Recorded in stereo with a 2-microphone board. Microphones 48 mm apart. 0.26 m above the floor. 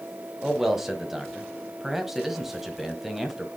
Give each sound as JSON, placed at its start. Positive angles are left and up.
{"t": 0.4, "sound": "a man speaking", "side_deg": -5, "distance_m": 1.2}